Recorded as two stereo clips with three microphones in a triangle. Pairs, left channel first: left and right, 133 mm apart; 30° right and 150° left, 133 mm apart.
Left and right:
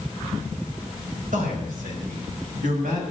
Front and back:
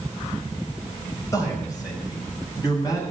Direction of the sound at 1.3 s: 95° right.